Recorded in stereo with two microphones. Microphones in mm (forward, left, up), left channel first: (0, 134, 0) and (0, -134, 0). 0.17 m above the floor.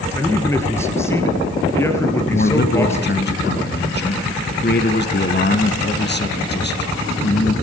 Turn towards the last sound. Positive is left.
turn(degrees=40)  # may be behind; listen again after turning